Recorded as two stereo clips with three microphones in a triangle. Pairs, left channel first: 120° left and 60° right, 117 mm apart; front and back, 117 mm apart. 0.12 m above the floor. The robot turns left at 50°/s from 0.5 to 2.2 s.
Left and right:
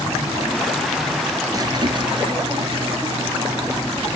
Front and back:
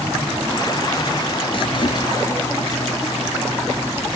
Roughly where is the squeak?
Ahead.